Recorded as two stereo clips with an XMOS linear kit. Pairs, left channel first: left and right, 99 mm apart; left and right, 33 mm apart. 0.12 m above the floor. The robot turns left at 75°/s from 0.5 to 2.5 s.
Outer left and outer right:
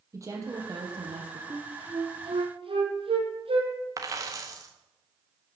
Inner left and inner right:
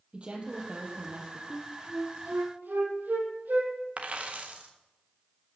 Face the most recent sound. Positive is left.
turn(degrees=-35)  # may be behind; listen again after turning